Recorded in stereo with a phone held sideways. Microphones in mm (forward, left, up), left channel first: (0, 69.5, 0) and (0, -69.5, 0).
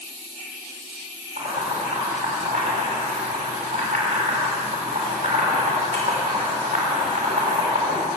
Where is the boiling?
75° right (ahead or behind), 6 m.